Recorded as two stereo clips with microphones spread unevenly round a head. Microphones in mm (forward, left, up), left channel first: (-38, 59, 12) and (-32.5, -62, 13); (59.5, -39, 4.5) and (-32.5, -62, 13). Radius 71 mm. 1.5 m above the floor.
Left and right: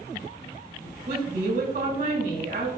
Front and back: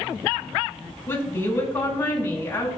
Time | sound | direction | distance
1.1 | a woman speaking | 50° right | 5 m